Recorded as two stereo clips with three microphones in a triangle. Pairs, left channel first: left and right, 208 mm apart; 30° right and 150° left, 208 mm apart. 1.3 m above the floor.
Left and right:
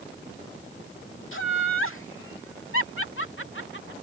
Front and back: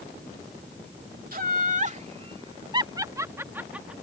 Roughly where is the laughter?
Left.